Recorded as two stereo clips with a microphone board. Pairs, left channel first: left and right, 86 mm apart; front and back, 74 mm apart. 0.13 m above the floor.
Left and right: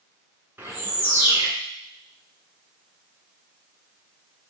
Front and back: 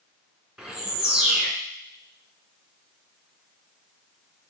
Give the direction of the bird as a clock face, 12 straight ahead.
4 o'clock.